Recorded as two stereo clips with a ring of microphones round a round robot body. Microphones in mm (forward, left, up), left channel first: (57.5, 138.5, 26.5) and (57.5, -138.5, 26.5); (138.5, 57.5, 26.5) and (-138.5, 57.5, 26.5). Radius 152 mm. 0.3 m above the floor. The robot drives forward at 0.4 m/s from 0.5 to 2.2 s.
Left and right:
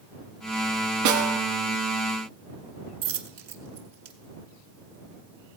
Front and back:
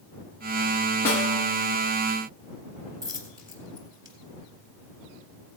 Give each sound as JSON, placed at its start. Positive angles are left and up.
{"t": 1.1, "sound": "a snare drum", "azimuth_deg": -85, "distance_m": 1.8}
{"t": 3.0, "sound": "a dropped coin", "azimuth_deg": -100, "distance_m": 1.2}